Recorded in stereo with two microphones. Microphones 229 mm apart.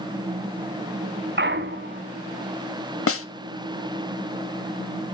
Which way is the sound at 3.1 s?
75° left (ahead or behind).